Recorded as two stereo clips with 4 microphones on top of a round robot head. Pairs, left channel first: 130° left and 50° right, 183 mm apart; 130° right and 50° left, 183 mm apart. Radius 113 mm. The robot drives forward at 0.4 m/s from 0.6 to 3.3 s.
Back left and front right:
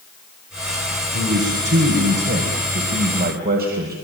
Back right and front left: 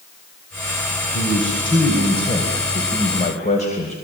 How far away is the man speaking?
About 4 m.